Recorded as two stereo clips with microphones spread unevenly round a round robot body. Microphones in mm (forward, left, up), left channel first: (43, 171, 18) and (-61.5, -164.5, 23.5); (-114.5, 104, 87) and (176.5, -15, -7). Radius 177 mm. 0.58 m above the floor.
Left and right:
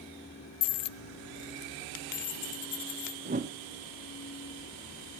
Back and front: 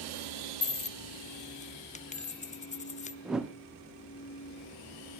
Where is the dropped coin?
80° left, 0.6 m.